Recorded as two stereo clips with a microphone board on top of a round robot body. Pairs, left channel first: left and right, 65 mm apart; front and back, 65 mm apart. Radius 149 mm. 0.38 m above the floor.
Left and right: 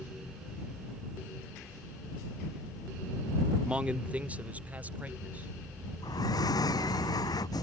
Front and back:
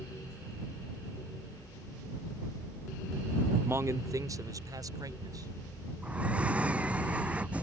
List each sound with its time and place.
3.6 s a man speaking: 155° right
6.0 s breathing: 110° left